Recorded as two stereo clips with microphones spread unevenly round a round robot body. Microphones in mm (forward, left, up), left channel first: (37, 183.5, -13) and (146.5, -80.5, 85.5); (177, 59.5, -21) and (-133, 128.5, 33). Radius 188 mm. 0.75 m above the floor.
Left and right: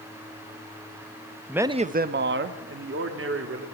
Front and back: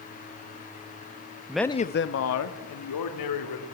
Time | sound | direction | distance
1.5 | a man speaking | 75° left | 0.8 m